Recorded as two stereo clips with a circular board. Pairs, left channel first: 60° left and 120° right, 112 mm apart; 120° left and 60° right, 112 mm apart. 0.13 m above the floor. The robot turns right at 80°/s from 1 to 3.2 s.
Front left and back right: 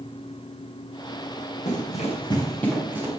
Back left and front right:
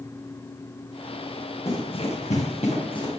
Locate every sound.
1.6 s running footsteps: 55° left, 5.5 m; by 3.1 s 175° left, 6.5 m